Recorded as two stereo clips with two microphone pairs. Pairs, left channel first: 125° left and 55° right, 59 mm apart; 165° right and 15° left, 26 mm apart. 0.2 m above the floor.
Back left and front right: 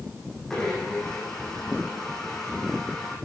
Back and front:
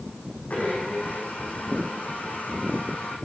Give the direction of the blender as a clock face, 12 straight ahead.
5 o'clock.